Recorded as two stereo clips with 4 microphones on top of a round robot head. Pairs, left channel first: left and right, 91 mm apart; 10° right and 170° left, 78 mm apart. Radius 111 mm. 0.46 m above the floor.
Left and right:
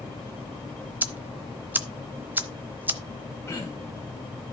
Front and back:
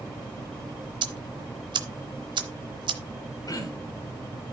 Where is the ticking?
160° right, 0.9 m.